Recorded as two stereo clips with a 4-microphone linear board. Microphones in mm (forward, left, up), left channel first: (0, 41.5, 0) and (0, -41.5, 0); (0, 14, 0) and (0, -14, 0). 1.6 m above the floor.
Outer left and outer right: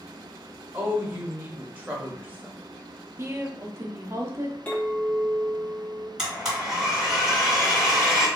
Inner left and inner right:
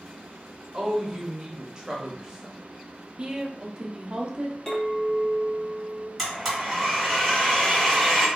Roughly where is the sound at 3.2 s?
Right.